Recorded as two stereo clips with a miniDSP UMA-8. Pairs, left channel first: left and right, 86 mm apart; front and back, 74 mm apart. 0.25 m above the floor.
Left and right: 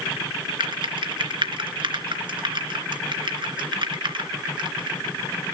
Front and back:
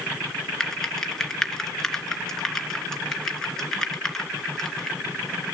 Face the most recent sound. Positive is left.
turn(degrees=-80)